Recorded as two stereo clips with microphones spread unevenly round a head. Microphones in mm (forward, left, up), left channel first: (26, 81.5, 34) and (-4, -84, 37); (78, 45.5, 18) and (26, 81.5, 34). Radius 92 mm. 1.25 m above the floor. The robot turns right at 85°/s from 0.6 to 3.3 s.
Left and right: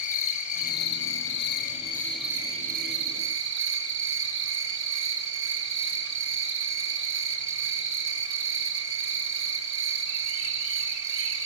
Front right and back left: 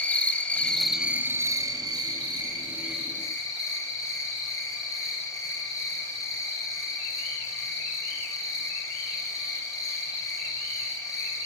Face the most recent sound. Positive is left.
turn(degrees=-95)